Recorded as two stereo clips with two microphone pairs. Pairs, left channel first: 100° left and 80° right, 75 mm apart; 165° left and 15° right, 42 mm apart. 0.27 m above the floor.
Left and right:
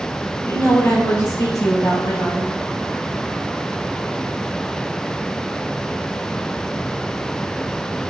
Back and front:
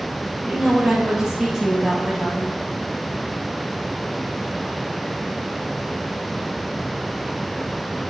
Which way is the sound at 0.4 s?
50° left.